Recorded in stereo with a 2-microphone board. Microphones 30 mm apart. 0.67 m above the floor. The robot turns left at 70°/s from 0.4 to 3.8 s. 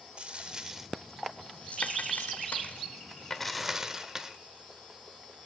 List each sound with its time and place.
0.2 s a dropped coin: 35° right (ahead or behind), 1.0 m; by 4.3 s 20° right (ahead or behind), 1.0 m